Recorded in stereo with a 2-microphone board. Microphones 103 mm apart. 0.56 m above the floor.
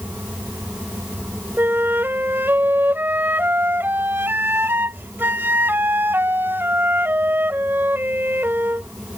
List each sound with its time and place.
1.6 s a flute: 20° right (ahead or behind)